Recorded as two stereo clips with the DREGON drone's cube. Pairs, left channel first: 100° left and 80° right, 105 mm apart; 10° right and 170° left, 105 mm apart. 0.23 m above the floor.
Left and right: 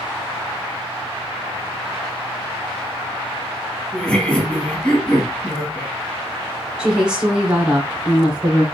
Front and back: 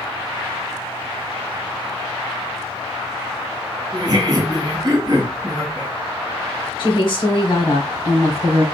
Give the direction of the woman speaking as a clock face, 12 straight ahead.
12 o'clock.